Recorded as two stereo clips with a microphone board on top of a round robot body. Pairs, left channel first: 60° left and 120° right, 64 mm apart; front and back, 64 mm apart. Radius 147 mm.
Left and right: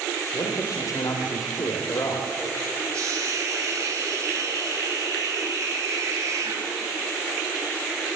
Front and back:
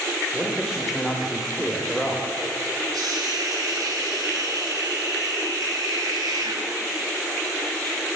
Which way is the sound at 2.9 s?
160° right.